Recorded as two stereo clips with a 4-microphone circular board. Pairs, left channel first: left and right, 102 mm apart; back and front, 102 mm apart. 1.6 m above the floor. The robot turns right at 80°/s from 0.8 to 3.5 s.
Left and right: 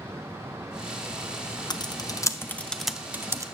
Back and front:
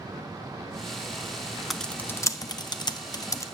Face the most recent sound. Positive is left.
turn(degrees=-130)